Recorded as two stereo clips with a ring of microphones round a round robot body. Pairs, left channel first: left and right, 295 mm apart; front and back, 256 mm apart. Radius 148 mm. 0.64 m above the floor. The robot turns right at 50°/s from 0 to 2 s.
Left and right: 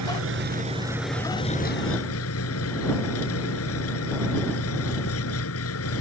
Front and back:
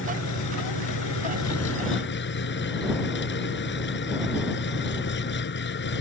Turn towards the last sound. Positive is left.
turn(degrees=45)